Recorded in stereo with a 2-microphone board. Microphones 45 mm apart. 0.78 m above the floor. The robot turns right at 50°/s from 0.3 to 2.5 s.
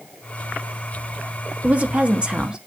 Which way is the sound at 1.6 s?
85° right.